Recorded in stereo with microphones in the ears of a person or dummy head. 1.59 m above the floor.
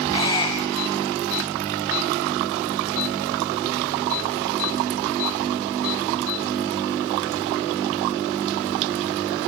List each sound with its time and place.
0.1 s a squeak: 25° left (ahead or behind), 5 m